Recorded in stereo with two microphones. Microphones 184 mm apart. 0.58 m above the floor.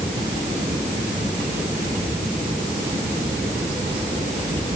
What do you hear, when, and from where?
Only background noise.